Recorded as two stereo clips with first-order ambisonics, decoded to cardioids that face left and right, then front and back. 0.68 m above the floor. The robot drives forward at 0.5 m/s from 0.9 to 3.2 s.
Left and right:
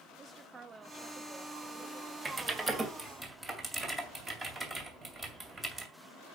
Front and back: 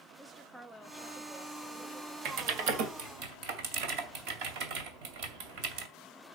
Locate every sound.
0.2 s a woman speaking: 115° right, 0.8 m; by 2.1 s 160° right, 1.1 m
2.2 s typing on a keyboard: 160° right, 1.7 m; by 5.9 s 165° right, 2 m